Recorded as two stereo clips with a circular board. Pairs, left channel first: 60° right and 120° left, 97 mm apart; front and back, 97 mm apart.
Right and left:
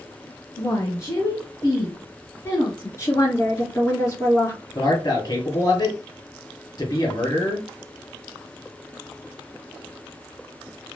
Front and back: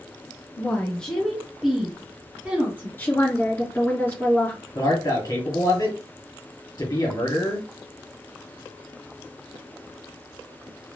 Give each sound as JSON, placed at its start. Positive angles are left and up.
{"t": 0.6, "sound": "a woman speaking", "azimuth_deg": -45, "distance_m": 1.2}
{"t": 3.0, "sound": "a woman speaking", "azimuth_deg": -45, "distance_m": 1.7}
{"t": 4.8, "sound": "a man speaking", "azimuth_deg": -30, "distance_m": 1.9}